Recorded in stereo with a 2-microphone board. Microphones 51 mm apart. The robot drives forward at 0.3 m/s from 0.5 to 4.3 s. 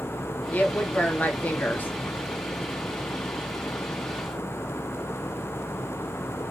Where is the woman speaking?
35° left (ahead or behind), 1.3 m.